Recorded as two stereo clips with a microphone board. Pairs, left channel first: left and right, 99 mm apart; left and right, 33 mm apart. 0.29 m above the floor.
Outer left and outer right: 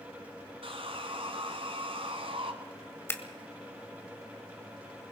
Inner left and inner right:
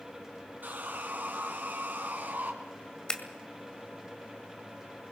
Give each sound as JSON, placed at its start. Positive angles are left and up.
{"t": 0.6, "sound": "sawing", "side_deg": -70, "distance_m": 2.0}
{"t": 3.1, "sound": "scissors", "side_deg": 25, "distance_m": 1.7}